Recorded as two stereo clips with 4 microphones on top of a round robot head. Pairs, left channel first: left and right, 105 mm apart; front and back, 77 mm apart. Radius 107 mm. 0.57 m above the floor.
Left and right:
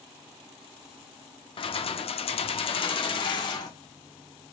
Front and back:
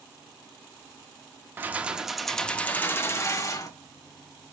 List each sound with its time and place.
1.6 s keys jangling: 115° left, 0.8 m; by 3.7 s 40° left, 1.1 m